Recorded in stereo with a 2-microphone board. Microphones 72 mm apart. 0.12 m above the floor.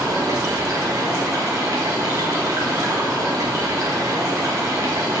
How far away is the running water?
About 1.7 m.